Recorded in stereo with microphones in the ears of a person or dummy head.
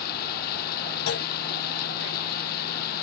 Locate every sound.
0.0 s running water: 60° left (ahead or behind)
1.1 s a clunk: 70° left (ahead or behind)